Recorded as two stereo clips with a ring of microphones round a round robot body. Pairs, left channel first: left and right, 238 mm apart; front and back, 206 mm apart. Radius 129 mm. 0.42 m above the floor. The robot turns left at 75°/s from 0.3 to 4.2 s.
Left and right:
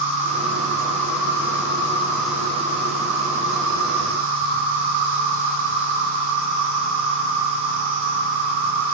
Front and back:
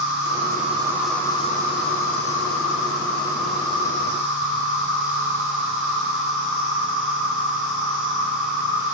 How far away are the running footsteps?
No running footsteps in this recording.